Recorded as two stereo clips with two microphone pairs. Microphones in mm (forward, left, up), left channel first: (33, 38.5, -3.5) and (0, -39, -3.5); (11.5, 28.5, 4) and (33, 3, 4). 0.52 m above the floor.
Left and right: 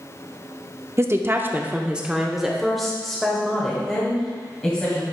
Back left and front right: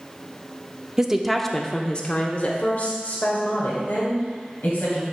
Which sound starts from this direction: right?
A woman speaking, at 1.0 s.